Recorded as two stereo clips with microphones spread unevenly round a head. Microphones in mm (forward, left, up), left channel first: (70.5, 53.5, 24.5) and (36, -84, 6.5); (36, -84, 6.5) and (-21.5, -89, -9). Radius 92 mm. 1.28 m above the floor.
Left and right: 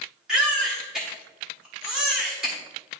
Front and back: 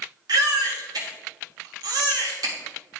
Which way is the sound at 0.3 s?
165° left.